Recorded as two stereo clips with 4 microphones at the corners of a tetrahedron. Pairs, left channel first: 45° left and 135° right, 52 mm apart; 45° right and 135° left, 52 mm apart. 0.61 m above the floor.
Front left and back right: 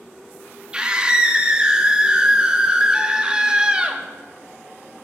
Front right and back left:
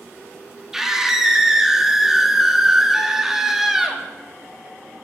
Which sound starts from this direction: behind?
A scream, at 0.7 s.